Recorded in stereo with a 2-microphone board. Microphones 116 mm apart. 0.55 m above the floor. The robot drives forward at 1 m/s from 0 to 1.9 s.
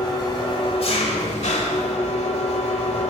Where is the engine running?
40° left (ahead or behind), 2.0 m; by 3.1 s 70° left (ahead or behind), 1.3 m.